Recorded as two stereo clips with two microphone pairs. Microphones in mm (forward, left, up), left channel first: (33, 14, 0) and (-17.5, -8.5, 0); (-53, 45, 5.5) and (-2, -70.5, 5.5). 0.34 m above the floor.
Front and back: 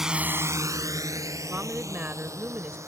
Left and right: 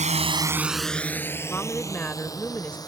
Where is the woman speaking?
Straight behind.